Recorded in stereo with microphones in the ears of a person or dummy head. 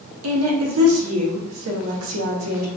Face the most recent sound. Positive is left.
turn(degrees=-75)  # may be behind; listen again after turning